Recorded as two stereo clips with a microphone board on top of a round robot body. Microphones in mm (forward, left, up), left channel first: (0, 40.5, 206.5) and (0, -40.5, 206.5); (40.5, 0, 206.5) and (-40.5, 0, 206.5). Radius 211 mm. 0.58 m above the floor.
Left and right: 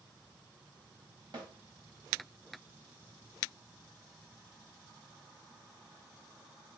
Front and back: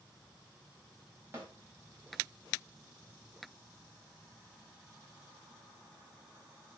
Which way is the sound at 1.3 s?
115° right.